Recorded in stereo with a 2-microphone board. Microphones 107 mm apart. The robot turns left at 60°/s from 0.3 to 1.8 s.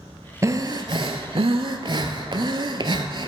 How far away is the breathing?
About 0.6 m.